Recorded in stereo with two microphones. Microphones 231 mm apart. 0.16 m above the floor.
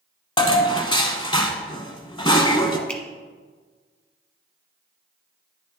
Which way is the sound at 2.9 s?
5° left (ahead or behind).